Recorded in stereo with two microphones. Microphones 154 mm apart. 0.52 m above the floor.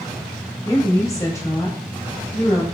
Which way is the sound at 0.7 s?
20° left (ahead or behind).